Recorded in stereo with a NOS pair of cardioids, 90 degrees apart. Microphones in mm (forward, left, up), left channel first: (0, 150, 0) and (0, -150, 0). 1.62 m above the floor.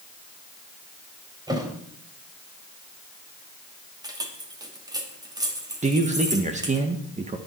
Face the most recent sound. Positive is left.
turn(degrees=-25)